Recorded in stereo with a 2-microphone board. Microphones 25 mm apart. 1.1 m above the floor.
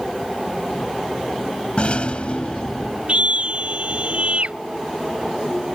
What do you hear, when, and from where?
1.8 s a rattle: 50° left (ahead or behind)
3.1 s a scream: 50° right (ahead or behind)